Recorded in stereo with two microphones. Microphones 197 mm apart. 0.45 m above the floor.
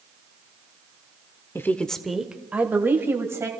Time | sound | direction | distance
1.6 | a woman speaking | 15° left (ahead or behind) | 0.8 m